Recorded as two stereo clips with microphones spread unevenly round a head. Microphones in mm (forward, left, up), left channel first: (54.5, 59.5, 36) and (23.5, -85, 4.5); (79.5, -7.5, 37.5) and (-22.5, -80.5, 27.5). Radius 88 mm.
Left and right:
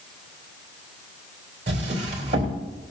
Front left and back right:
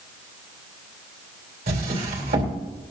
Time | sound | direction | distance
1.7 | a drawer | 160° right | 2.5 m